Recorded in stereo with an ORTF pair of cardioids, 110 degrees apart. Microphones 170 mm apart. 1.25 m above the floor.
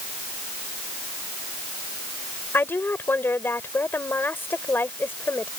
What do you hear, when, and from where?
2.5 s a woman speaking: 10° left